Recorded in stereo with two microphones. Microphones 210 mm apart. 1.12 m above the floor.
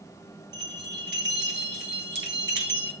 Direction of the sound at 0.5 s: 60° right (ahead or behind).